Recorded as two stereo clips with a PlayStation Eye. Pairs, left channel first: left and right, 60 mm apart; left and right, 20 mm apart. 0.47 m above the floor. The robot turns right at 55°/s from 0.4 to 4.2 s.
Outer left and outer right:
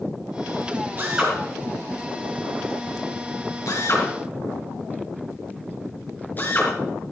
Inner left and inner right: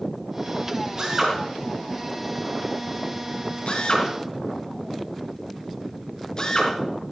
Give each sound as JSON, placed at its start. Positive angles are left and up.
{"t": 1.0, "sound": "a drill", "side_deg": -30, "distance_m": 4.0}